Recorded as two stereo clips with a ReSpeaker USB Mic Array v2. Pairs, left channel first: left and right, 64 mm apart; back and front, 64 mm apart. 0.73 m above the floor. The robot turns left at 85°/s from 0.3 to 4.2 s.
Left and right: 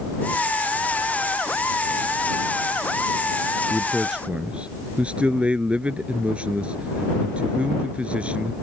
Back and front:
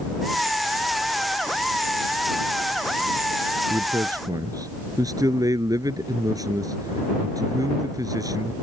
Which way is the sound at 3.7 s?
25° left.